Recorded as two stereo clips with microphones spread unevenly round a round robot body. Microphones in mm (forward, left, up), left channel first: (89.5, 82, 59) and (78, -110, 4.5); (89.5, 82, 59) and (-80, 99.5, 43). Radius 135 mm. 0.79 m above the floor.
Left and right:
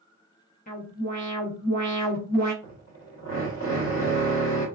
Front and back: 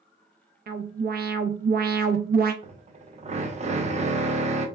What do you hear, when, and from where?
0.7 s an alarm: 150° left, 0.5 m
2.6 s a drill: 125° left, 0.7 m